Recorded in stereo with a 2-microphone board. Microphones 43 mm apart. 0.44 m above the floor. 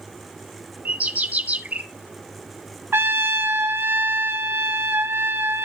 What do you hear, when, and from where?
0.8 s a bird: 35° right (ahead or behind), 1.1 m
2.9 s a trumpet: 60° right (ahead or behind), 1.3 m